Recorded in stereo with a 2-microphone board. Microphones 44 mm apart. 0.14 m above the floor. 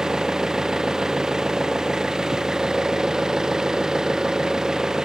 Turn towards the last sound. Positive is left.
turn(degrees=-15)  # may be behind; listen again after turning